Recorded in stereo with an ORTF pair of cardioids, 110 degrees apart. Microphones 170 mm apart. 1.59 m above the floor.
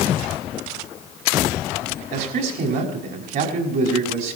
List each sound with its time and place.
2.1 s a man speaking: 70° right, 5.5 m